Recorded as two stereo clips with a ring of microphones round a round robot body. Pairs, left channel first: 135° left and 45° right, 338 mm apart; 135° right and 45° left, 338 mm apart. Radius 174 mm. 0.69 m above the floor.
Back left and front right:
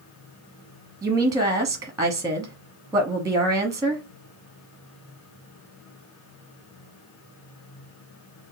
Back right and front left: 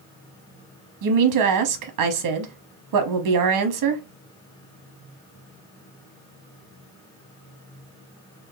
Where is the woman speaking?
35° left, 0.8 m.